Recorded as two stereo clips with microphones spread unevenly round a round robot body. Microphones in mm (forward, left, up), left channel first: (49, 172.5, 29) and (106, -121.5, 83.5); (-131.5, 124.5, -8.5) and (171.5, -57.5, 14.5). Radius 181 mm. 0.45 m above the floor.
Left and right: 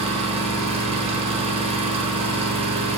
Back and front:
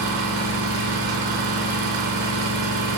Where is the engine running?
5° right, 0.7 m.